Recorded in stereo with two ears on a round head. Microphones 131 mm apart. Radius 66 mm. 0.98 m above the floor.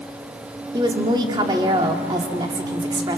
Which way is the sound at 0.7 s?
30° right (ahead or behind).